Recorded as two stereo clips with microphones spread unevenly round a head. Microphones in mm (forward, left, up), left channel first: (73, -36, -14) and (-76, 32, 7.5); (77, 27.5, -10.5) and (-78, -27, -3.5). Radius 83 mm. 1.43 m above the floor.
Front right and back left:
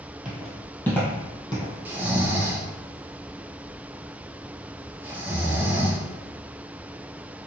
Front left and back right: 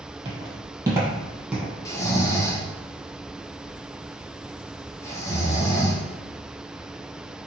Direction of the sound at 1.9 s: 90° left.